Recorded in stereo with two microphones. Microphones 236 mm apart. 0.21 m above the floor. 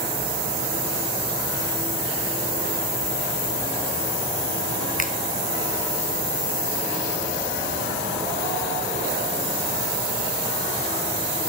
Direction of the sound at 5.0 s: 35° left (ahead or behind).